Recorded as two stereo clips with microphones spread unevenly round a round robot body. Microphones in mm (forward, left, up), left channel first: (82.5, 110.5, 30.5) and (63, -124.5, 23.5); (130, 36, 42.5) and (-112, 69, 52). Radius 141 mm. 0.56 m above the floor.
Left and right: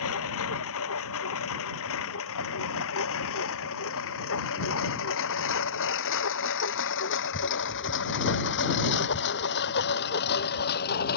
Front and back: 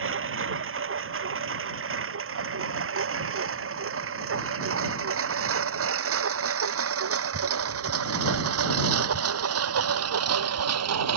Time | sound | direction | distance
0.0 | a lawn mower | 130° left | ?